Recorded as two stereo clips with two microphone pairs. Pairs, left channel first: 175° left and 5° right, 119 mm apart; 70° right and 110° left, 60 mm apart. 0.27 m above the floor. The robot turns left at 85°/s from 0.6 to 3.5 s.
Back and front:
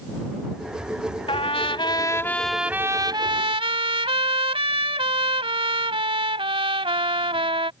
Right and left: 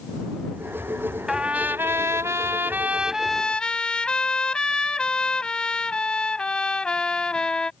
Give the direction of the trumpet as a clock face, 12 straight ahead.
6 o'clock.